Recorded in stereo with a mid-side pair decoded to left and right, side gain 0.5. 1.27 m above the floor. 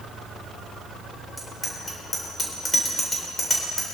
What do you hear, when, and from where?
1.4 s a bicycle bell: 20° left, 3.5 m